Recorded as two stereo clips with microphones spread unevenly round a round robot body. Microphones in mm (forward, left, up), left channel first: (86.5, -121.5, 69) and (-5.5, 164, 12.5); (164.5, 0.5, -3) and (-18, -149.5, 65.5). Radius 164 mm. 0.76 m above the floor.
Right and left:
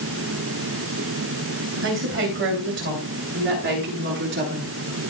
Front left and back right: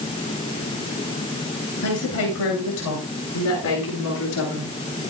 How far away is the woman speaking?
About 9.5 m.